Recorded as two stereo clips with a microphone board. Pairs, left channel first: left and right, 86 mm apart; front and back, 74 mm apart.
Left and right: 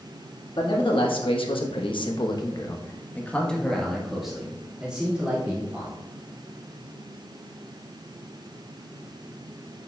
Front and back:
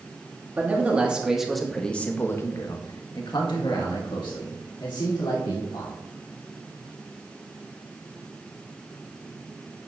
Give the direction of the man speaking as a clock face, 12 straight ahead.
8 o'clock.